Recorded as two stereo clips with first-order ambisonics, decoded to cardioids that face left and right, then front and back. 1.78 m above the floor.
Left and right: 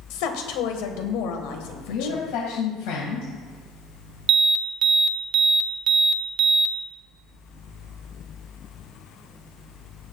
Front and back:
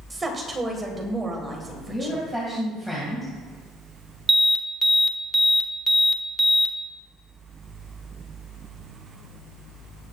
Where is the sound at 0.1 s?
105° left, 1.6 m.